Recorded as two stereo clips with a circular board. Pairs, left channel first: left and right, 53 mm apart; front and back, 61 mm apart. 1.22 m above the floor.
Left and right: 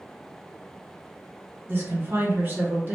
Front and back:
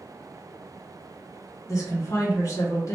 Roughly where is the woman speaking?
Ahead right.